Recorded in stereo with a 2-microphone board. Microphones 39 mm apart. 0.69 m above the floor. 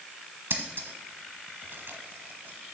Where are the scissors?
65° right (ahead or behind), 1.0 m.